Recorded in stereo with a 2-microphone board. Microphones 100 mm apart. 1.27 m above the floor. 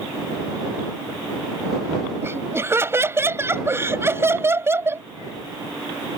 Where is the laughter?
25° right (ahead or behind).